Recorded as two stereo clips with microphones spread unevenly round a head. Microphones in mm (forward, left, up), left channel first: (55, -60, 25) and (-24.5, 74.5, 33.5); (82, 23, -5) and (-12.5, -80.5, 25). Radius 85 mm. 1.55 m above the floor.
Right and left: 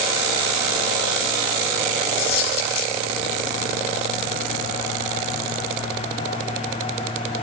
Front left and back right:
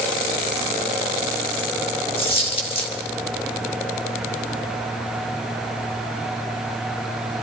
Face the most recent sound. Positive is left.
turn(degrees=-5)